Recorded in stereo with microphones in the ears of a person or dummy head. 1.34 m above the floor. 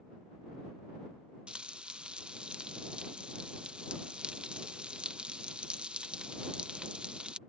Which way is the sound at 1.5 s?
Centre (ahead or behind).